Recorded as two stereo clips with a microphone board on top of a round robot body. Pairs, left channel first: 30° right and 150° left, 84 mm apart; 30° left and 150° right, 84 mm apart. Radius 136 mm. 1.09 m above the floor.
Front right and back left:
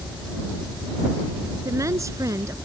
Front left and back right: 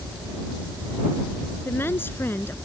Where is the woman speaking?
95° left.